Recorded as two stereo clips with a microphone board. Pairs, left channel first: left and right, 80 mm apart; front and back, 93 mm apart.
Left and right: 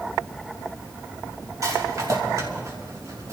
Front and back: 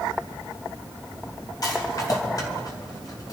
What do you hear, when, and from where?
1.6 s a rattle: 45° right, 3.5 m